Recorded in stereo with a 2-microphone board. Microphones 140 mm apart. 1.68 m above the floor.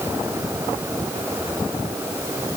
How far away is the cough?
I don't hear a cough.